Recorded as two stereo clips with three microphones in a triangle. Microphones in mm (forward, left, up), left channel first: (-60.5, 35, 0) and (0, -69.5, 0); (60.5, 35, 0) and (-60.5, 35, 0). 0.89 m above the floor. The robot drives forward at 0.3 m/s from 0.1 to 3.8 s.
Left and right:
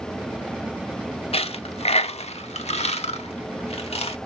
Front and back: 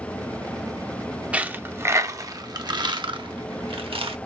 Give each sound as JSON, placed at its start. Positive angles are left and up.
{"t": 1.3, "sound": "a dropped coin", "azimuth_deg": 105, "distance_m": 0.7}